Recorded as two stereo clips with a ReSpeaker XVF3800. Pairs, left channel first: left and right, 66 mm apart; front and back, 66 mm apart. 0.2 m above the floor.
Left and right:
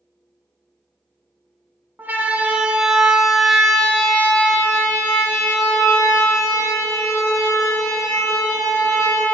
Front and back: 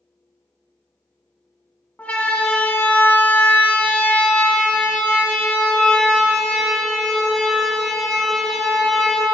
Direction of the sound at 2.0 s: 50° right.